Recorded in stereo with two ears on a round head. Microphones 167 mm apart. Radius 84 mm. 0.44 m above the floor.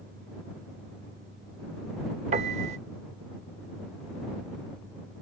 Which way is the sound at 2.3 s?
35° right (ahead or behind).